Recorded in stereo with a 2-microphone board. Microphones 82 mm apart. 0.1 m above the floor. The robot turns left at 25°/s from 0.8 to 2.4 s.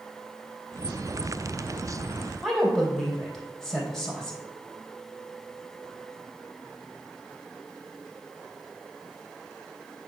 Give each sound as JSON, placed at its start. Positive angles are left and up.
{"t": 2.4, "sound": "a woman speaking", "side_deg": 0, "distance_m": 3.0}